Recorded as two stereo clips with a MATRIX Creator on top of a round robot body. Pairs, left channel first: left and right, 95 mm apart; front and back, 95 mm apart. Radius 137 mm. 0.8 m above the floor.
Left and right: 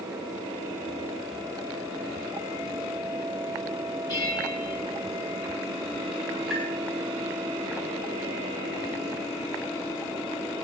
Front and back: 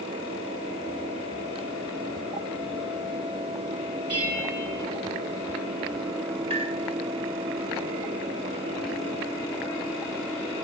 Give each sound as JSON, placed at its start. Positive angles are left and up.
{"t": 4.1, "sound": "a bell", "azimuth_deg": 140, "distance_m": 6.0}
{"t": 6.5, "sound": "tapping", "azimuth_deg": -175, "distance_m": 9.0}